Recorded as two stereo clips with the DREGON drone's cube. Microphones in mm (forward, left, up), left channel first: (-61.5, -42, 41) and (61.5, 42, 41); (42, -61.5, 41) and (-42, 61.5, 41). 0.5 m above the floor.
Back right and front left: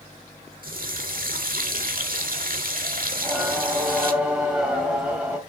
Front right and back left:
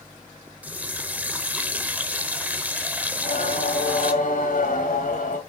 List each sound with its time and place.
0.6 s a running tap: 45° left, 1.2 m
3.1 s singing: 50° right, 3.5 m